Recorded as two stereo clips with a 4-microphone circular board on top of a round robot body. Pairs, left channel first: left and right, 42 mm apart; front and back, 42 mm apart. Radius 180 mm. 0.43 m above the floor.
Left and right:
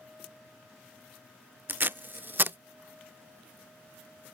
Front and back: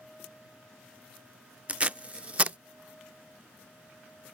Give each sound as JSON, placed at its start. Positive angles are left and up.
{"t": 1.7, "sound": "tape being pulled", "azimuth_deg": -125}